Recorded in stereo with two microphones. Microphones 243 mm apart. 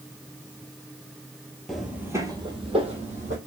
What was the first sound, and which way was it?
Footsteps, centre (ahead or behind).